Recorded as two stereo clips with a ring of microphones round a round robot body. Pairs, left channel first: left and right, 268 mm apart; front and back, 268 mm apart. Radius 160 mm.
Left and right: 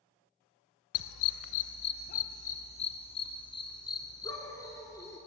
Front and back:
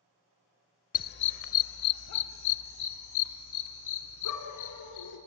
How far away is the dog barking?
About 0.6 m.